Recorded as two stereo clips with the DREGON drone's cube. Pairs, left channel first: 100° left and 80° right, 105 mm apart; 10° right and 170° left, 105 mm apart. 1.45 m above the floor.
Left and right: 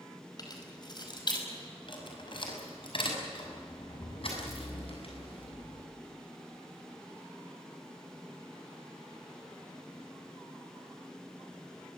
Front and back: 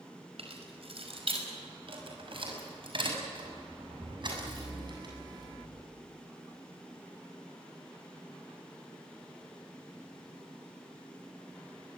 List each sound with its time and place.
0.4 s keys jangling: 150° left, 5 m; by 5.8 s 120° left, 8.5 m